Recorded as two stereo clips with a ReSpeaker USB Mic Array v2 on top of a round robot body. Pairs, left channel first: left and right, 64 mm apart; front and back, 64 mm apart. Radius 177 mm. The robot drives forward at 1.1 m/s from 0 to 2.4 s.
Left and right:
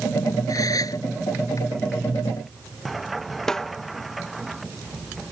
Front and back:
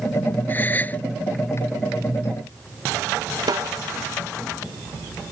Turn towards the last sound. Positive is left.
turn(degrees=170)